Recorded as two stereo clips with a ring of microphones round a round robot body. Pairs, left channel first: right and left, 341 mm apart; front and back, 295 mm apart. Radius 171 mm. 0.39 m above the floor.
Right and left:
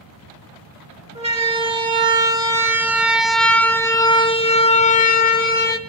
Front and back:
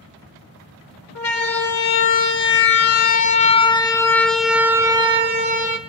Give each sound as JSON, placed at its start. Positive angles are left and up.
{"t": 1.1, "sound": "a siren", "azimuth_deg": 20, "distance_m": 2.0}